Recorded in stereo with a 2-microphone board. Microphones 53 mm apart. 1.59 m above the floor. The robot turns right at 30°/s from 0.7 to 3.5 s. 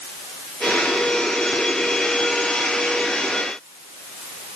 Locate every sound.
Only background noise.